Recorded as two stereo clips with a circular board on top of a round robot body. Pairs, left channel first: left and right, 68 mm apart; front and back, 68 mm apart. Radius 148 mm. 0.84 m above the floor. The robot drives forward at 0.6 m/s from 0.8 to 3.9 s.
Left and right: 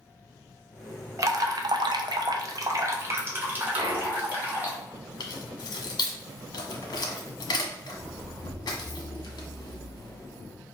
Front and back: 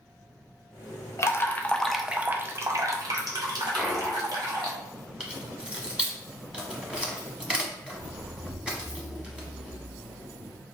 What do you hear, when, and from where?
1.2 s dripping: 45° right, 0.7 m; by 4.7 s 155° right, 1.3 m
3.7 s a clunk: 95° right, 0.8 m; by 4.3 s 105° right, 0.8 m
5.2 s keys jangling: 105° left, 1.2 m